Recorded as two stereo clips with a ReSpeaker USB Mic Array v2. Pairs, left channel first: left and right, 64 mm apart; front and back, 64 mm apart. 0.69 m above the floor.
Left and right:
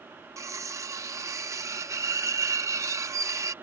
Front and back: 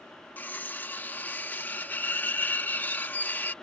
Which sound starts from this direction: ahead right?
Cutlery clinking, at 0.4 s.